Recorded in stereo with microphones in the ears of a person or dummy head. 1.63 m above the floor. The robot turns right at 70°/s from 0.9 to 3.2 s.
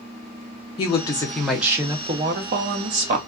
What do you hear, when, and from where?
0.8 s a woman speaking: 135° left, 0.6 m; by 3.2 s 65° right, 0.6 m